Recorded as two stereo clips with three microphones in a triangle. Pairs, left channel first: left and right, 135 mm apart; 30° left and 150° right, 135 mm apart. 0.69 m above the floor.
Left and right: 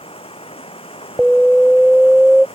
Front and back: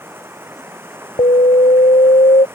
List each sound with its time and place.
0.0 s running water: 135° left
1.2 s an alarm: 5° right